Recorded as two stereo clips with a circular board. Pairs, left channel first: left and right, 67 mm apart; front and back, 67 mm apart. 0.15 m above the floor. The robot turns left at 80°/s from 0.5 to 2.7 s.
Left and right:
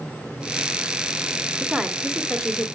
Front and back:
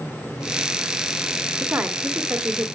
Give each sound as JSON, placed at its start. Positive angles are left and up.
{"t": 1.6, "sound": "a woman speaking", "azimuth_deg": -145, "distance_m": 1.6}